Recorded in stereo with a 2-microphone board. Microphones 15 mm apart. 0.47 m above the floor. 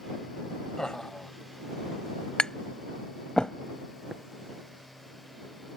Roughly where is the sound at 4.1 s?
Centre.